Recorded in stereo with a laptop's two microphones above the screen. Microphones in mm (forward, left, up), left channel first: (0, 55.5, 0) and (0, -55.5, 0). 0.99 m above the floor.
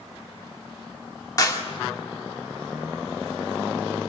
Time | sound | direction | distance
1.4 | a clap | 35° left (ahead or behind) | 1.8 m